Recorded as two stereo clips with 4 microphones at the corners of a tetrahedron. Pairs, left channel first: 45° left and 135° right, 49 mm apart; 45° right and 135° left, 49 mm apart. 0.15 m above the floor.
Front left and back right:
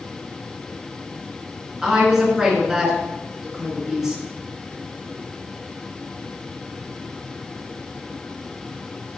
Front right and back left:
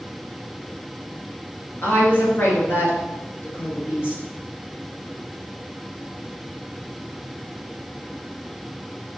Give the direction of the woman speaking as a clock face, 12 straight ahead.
2 o'clock.